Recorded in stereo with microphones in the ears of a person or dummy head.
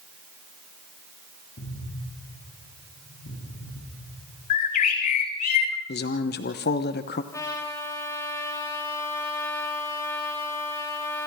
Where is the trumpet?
10° left (ahead or behind), 6 m.